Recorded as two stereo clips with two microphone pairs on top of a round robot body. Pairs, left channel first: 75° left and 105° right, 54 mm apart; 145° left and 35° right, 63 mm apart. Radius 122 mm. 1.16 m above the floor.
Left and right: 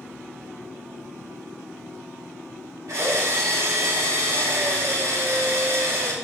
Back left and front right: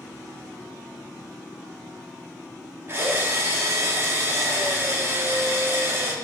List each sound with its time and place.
2.9 s a drill: 85° right, 2 m